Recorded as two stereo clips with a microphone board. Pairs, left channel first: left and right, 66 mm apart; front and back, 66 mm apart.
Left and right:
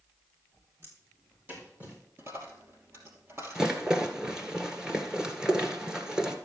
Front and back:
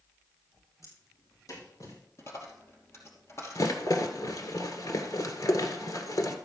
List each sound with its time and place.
0.8 s footsteps: 35° right, 6.5 m; by 2.0 s 25° right, 6.5 m
2.2 s a dropped coin: 40° right, 2.5 m
3.5 s a rattle: 10° right, 1.6 m